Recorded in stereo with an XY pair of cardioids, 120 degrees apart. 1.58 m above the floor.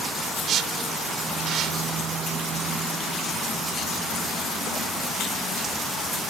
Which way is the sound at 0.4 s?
60° right.